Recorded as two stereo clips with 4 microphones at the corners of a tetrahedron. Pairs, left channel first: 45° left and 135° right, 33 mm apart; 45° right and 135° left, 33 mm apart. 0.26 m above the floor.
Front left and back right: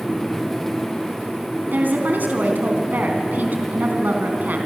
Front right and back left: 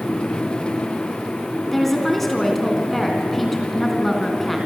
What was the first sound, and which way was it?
A woman speaking, 130° right.